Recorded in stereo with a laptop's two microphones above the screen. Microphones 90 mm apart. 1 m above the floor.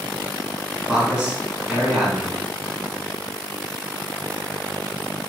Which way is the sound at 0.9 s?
15° right (ahead or behind).